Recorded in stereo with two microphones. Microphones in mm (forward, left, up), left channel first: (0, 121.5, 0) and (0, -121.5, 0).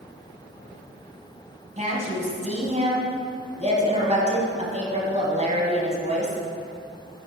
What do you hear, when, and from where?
1.8 s a woman speaking: 30° right (ahead or behind), 1.9 m